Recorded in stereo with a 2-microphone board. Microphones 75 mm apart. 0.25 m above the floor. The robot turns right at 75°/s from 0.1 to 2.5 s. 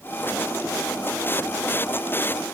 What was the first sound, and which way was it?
Only background noise.